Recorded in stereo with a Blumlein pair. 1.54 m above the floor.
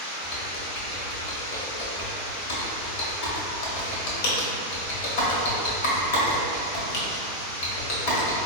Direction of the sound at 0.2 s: 50° left.